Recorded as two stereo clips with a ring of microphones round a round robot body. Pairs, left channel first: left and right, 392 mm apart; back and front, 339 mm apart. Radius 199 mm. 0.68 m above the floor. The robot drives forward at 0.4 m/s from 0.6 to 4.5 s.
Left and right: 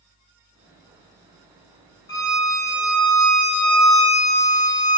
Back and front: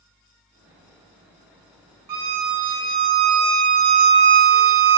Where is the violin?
10° left, 1.5 m; by 5.0 s 20° left, 0.6 m.